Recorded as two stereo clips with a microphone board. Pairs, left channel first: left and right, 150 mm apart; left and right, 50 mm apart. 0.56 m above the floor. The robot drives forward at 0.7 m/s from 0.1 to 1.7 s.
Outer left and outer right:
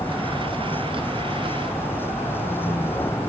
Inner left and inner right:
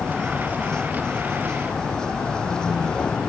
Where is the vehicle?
15° left (ahead or behind).